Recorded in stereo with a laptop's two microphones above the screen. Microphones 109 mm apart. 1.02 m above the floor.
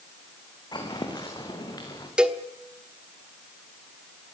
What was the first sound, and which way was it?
Footsteps, 40° left (ahead or behind).